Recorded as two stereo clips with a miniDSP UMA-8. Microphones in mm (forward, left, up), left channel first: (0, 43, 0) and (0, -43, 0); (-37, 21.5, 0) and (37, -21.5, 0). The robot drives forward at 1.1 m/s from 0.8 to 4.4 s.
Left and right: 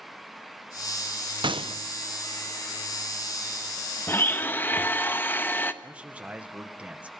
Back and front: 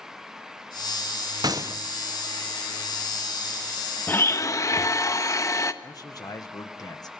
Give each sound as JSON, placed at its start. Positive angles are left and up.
{"t": 1.4, "sound": "a gunshot", "azimuth_deg": -70, "distance_m": 1.1}
{"t": 4.1, "sound": "a blender", "azimuth_deg": 110, "distance_m": 0.9}
{"t": 5.8, "sound": "a man speaking", "azimuth_deg": -165, "distance_m": 1.7}